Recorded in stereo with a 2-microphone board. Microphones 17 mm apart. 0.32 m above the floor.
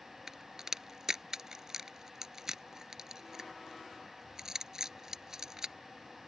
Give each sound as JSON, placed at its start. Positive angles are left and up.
{"t": 0.3, "sound": "a crack", "side_deg": -30}